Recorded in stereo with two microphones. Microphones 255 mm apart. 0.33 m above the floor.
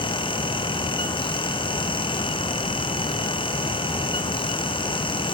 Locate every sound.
Only background noise.